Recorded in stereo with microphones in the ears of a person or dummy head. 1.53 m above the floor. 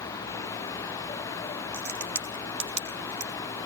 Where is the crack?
55° right (ahead or behind), 2 m.